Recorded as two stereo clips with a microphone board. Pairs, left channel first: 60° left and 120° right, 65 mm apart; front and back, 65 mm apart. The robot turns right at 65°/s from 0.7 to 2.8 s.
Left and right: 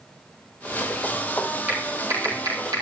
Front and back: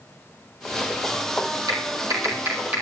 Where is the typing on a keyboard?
170° left, 5 m; by 2.8 s 115° right, 5 m.